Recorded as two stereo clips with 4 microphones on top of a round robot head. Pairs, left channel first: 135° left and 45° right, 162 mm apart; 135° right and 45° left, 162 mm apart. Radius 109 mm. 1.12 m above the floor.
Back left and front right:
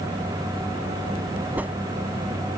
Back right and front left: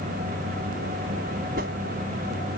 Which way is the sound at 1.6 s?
35° left.